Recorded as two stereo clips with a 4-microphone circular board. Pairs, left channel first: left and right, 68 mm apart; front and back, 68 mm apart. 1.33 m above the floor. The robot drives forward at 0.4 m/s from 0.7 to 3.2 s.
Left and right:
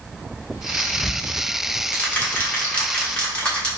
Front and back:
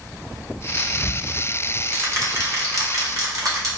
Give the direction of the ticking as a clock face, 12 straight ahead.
8 o'clock.